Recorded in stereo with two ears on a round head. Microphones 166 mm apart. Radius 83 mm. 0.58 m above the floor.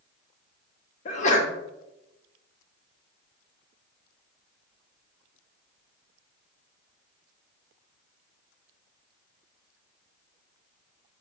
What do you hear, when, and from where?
1.1 s a sneeze: 40° left (ahead or behind), 0.7 m